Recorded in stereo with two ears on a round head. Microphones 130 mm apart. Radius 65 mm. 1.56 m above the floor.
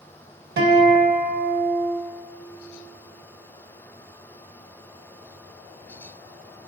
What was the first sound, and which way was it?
A guitar, 85° right.